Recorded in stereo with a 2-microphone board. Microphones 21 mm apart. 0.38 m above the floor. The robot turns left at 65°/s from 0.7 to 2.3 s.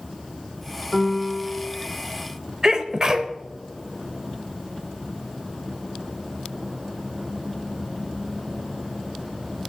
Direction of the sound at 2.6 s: 35° right (ahead or behind).